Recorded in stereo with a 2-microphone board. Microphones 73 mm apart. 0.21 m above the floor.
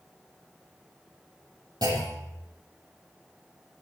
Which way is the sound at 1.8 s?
65° right (ahead or behind).